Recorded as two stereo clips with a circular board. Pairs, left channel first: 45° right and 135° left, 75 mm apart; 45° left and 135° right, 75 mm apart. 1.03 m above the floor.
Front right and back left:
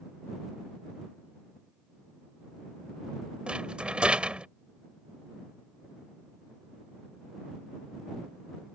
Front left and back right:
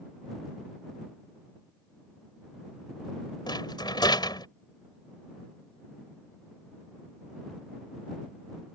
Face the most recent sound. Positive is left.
turn(degrees=60)